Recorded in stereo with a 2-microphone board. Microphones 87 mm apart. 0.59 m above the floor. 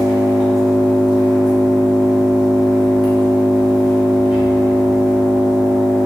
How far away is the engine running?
About 0.9 m.